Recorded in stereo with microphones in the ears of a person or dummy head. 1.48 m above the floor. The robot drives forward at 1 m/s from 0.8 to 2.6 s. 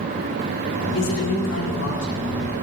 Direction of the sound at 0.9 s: 75° left (ahead or behind).